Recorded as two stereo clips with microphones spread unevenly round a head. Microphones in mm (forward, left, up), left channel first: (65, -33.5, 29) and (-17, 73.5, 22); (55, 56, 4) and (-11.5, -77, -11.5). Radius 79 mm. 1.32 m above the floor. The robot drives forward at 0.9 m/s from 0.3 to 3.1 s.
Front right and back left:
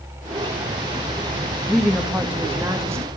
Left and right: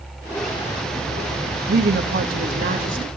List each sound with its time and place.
1.7 s a woman speaking: 145° right, 1.8 m; by 3.1 s 160° right, 3 m